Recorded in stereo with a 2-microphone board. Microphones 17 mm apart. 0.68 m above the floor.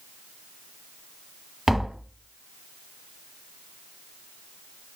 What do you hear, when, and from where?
1.7 s tapping: 15° right (ahead or behind), 1.2 m